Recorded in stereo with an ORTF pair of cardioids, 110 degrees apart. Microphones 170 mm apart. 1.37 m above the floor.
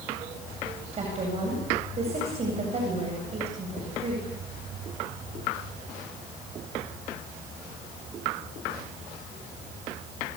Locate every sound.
0.9 s a woman speaking: 40° right, 8.5 m